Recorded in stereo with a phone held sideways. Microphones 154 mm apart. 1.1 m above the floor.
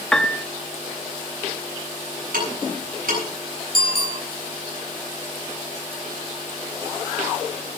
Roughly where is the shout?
I don't hear a shout.